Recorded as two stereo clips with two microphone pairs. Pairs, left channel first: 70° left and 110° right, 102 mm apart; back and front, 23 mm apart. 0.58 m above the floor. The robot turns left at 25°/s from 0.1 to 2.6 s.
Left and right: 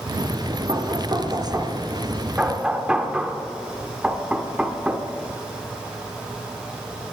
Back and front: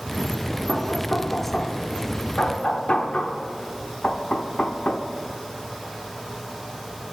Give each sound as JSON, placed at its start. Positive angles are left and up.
{"t": 0.7, "sound": "knocking", "azimuth_deg": -145, "distance_m": 1.1}